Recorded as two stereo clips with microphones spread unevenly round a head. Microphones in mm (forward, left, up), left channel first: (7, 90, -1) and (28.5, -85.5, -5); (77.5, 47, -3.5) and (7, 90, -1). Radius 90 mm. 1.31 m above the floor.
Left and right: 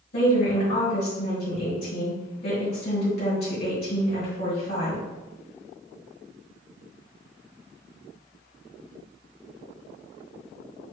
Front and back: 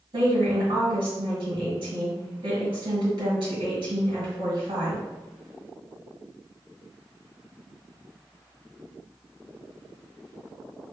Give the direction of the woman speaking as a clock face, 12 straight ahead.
7 o'clock.